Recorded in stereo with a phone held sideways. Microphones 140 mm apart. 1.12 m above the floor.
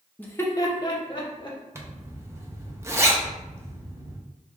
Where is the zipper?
20° right (ahead or behind), 0.6 m.